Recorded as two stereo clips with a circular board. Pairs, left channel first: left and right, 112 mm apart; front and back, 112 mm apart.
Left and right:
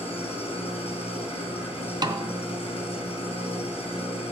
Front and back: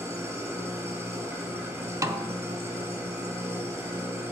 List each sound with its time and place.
0.0 s an engine running: 115° left, 4.5 m
2.0 s a snare drum: 130° right, 0.6 m